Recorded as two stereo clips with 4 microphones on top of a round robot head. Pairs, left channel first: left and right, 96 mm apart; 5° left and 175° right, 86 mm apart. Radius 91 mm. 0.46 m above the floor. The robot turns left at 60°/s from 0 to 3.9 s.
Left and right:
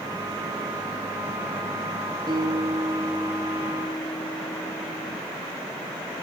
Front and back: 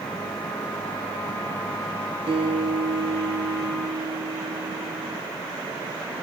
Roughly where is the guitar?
Behind right.